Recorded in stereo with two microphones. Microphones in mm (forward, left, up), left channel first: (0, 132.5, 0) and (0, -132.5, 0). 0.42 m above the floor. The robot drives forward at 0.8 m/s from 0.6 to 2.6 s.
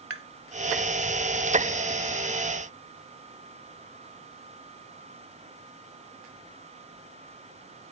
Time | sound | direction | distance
0.1 | tapping | 55° right (ahead or behind) | ?